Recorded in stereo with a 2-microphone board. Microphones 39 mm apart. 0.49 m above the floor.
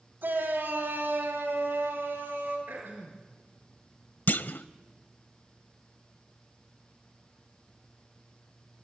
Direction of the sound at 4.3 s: 50° left (ahead or behind).